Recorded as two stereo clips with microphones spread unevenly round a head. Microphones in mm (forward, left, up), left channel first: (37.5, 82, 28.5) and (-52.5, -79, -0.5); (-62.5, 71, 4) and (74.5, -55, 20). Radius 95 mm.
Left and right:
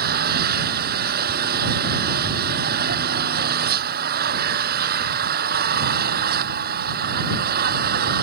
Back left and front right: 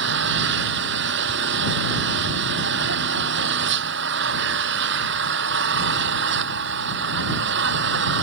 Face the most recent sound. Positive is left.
turn(degrees=-75)